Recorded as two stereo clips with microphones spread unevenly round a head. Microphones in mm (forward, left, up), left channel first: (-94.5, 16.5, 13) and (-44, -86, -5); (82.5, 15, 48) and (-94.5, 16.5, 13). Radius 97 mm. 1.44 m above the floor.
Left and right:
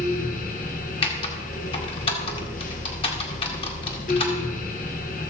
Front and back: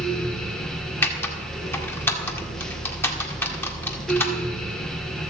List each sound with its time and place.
0.0 s a fan: 90° left, 1.6 m
1.0 s typing on a keyboard: 70° left, 1.8 m